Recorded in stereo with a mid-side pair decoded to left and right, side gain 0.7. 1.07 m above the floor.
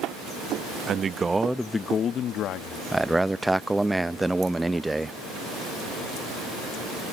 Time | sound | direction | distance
0.9 | a man speaking | 40° right | ?
2.9 | a man speaking | 10° right | ?